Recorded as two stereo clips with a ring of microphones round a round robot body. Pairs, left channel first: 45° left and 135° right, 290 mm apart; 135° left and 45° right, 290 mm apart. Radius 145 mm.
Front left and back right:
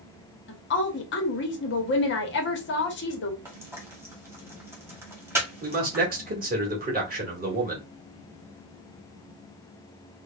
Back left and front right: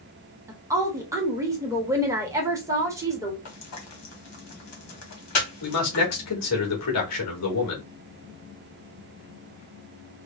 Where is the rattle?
No rattle in this recording.